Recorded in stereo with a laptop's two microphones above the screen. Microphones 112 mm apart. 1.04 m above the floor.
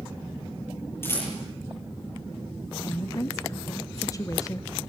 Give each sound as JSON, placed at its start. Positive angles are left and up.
{"t": 1.0, "sound": "a rattle", "side_deg": 20, "distance_m": 8.5}
{"t": 2.8, "sound": "a woman speaking", "side_deg": 30, "distance_m": 0.8}